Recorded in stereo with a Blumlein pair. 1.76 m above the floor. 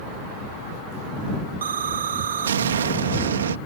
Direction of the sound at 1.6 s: 65° right.